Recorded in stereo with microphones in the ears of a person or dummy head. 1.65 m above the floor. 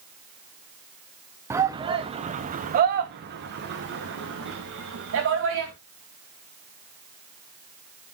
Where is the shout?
15° right (ahead or behind), 0.8 m; by 5.7 s 70° right (ahead or behind), 2.5 m.